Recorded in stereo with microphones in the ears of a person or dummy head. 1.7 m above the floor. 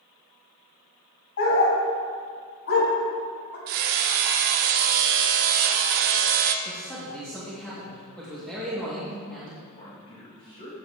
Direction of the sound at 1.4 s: 65° left (ahead or behind).